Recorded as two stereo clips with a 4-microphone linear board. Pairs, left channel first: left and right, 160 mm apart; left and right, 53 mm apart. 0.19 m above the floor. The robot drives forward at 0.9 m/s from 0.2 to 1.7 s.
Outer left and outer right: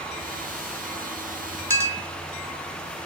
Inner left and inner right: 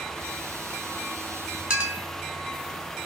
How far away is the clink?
About 0.8 m.